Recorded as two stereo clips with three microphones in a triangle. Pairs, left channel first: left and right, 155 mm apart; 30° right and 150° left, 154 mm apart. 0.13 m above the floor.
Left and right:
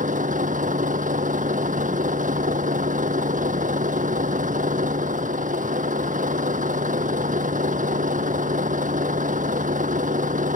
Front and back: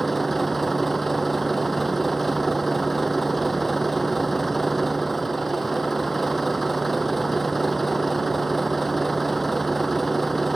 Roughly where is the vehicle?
Behind right.